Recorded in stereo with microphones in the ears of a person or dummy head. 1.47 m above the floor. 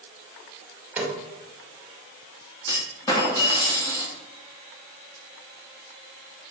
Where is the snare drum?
10° right (ahead or behind), 2.5 m.